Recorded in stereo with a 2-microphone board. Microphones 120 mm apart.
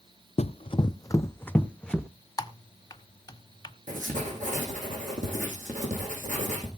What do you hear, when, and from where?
0.4 s running footsteps: 60° left (ahead or behind), 0.6 m; by 2.1 s 5° left (ahead or behind), 1.2 m
2.4 s typing on a keyboard: 30° left (ahead or behind), 1.0 m
3.9 s writing: 85° right, 6.5 m